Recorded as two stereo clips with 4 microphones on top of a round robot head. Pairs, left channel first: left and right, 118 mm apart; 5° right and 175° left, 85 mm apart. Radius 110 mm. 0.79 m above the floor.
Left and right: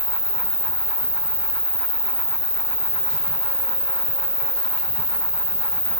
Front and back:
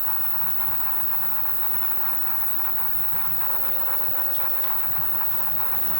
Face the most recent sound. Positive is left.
turn(degrees=155)